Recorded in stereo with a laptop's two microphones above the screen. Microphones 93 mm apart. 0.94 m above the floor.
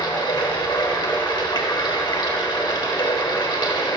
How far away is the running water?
About 1.1 m.